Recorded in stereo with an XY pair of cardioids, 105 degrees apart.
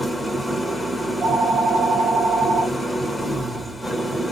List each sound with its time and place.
0.0 s an engine running: 5° left, 1.0 m
1.0 s a phone ringing: 60° right, 1.7 m